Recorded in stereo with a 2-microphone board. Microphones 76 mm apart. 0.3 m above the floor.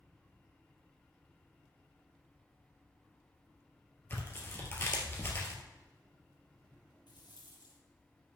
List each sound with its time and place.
4.1 s tearing paper: 30° left (ahead or behind), 2 m
7.1 s a rattle: 80° left, 2.5 m